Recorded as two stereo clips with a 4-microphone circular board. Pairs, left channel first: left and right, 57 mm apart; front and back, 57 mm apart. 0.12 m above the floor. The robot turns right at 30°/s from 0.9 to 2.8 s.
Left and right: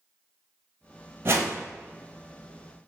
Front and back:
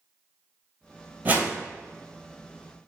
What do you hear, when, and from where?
1.2 s a whoosh: 130° right, 0.6 m; by 1.6 s 120° right, 0.6 m